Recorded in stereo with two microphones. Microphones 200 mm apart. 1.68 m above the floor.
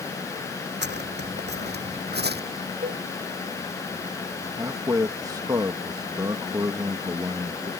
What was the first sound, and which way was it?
Footsteps, 60° right (ahead or behind).